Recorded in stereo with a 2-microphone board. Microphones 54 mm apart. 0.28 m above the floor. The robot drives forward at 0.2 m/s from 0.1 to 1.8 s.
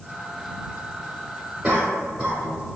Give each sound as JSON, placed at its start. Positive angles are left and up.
{"t": 1.6, "sound": "a cough", "side_deg": -10, "distance_m": 0.9}